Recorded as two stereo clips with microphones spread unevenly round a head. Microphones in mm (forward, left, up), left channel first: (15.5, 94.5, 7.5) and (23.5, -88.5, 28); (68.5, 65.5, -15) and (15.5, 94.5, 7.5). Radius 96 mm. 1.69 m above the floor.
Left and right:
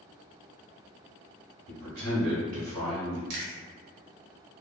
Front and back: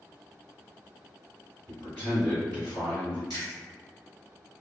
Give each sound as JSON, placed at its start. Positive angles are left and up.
{"t": 1.7, "sound": "a man speaking", "azimuth_deg": -120, "distance_m": 1.2}
{"t": 3.3, "sound": "chewing", "azimuth_deg": -95, "distance_m": 0.9}